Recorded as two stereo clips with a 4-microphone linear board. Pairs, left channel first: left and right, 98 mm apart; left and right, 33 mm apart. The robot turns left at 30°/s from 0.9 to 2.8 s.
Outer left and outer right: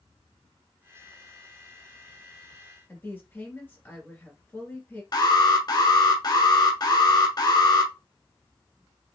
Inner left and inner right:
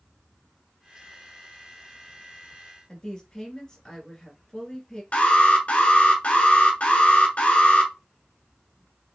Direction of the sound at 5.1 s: 45° left (ahead or behind).